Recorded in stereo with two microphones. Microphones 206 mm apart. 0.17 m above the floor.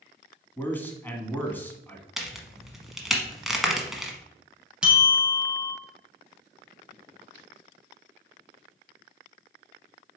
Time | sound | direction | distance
0.6 | a man speaking | 10° left (ahead or behind) | 1.2 m
2.2 | a crack | centre (ahead or behind) | 1.1 m
4.8 | a bell | 5° right (ahead or behind) | 1.8 m